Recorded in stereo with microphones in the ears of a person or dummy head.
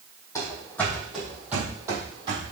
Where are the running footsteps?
15° left (ahead or behind), 3.5 m; by 2.5 s 30° right (ahead or behind), 3 m.